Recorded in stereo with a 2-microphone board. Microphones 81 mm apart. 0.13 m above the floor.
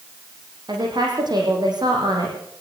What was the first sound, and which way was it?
A woman speaking, 60° right (ahead or behind).